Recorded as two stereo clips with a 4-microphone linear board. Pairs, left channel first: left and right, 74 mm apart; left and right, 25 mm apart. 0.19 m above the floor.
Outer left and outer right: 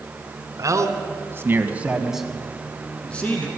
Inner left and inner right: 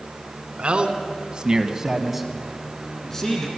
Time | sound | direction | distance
0.6 | a man speaking | 45° right (ahead or behind) | 1.9 m